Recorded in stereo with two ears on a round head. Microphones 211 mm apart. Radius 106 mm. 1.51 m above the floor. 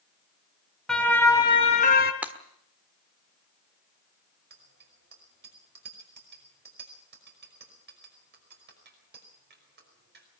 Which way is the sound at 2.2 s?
5° right (ahead or behind).